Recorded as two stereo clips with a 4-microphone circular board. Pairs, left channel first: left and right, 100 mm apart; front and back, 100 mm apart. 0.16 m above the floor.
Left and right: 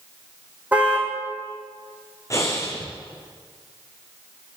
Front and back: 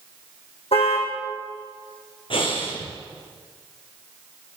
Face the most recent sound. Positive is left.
turn(degrees=30)